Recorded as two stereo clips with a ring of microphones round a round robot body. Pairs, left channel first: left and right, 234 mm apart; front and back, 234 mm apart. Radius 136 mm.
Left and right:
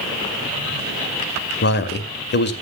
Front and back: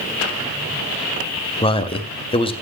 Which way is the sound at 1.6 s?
60° left.